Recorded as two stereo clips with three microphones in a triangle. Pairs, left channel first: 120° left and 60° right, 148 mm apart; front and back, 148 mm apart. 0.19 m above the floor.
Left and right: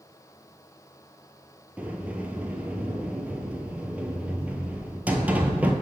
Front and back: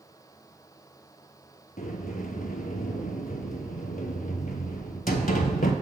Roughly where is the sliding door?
Ahead.